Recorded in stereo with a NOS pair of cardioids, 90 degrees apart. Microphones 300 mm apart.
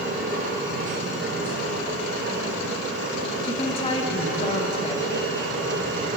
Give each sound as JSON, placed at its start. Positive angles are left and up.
{"t": 0.0, "sound": "a machine running", "azimuth_deg": -40, "distance_m": 3.0}
{"t": 3.4, "sound": "a woman speaking", "azimuth_deg": 15, "distance_m": 2.5}